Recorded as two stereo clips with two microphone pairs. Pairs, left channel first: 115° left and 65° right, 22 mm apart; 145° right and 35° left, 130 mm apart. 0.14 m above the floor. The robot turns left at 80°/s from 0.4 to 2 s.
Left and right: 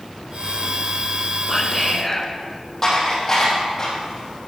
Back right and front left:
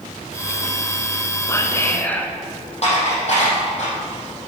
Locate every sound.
1.5 s whispering: 155° right, 1.1 m; by 2.3 s 165° left, 1.1 m
2.8 s dishes clattering: straight behind, 4 m